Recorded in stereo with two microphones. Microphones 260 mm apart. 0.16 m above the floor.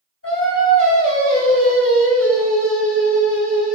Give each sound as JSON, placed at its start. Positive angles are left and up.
{"t": 0.2, "sound": "singing", "side_deg": 60, "distance_m": 1.7}